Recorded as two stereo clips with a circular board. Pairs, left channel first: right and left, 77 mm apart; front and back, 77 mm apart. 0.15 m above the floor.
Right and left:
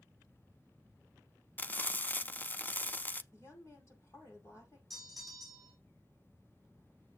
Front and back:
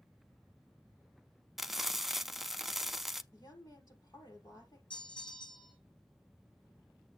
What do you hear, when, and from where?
1.6 s frying: 100° right, 0.5 m
3.3 s a woman speaking: 40° right, 5.5 m
4.9 s a bell: straight ahead, 3 m